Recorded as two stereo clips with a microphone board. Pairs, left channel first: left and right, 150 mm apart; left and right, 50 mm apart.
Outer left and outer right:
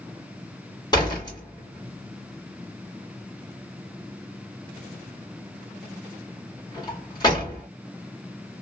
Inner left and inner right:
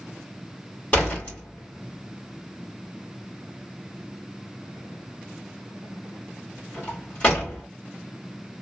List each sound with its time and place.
0.9 s a door slam: 25° left (ahead or behind), 1.8 m